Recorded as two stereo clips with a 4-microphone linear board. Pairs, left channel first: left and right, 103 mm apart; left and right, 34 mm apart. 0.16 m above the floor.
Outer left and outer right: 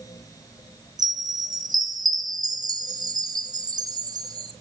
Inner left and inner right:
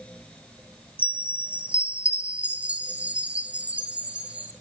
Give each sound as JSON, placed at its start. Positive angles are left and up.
{"t": 1.0, "sound": "a chime", "side_deg": -40, "distance_m": 1.7}